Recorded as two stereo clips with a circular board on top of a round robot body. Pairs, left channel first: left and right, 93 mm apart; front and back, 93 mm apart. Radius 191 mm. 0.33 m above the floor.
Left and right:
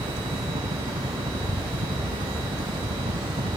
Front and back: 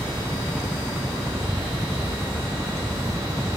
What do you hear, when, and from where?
0.0 s a helicopter: 90° right